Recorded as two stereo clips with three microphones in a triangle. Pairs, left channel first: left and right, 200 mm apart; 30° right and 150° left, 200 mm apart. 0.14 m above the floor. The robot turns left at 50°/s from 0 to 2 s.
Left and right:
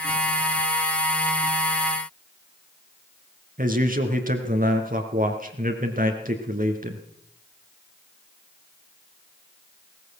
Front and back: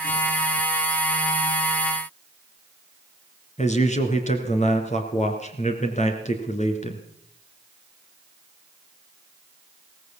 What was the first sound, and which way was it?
A man speaking, 70° right.